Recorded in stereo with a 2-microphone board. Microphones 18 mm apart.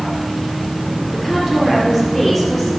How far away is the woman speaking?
About 3.5 m.